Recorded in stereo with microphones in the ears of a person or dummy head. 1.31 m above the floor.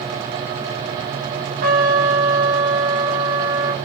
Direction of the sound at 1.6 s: 45° right (ahead or behind).